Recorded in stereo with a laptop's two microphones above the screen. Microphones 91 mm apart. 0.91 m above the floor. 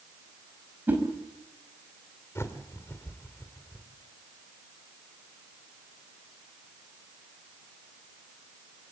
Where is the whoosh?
20° right (ahead or behind), 5 m.